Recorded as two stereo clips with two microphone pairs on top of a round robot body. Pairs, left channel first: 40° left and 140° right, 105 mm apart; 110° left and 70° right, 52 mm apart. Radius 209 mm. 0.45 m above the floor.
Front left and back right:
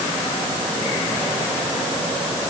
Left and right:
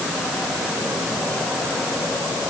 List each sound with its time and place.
Only background noise.